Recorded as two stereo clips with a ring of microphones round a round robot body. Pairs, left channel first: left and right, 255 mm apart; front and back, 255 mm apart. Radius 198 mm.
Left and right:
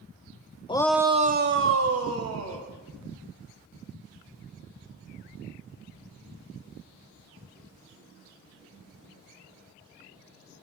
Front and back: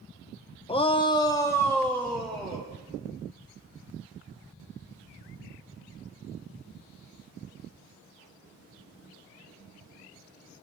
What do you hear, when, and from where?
0.7 s a shout: 45° left, 0.9 m; by 2.7 s 90° right, 2.5 m